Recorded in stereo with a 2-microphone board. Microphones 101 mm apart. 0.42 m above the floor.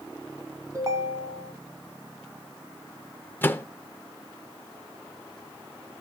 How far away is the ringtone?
About 1.8 m.